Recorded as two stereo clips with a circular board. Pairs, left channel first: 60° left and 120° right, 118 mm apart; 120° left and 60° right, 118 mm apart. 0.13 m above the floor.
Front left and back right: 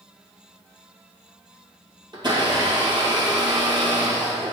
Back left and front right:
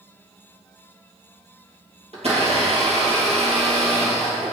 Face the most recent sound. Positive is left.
turn(degrees=-75)